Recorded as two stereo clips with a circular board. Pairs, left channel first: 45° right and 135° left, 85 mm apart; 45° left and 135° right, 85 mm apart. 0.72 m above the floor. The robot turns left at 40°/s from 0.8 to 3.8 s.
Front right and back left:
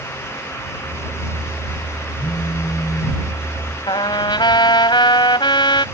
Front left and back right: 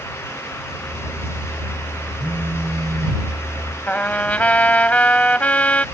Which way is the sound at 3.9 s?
30° right.